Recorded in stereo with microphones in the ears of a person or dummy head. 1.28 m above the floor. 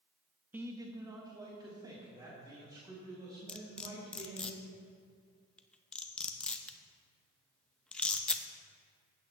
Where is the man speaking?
10° right (ahead or behind), 0.6 m; by 4.5 s 20° right (ahead or behind), 6 m.